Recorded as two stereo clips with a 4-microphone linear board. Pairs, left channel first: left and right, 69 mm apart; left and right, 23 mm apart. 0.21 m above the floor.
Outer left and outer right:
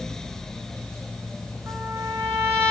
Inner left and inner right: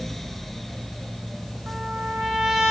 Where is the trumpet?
35° right (ahead or behind), 3.5 m.